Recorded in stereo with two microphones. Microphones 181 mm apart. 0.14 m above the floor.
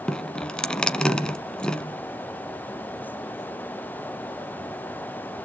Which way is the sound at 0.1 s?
5° left (ahead or behind).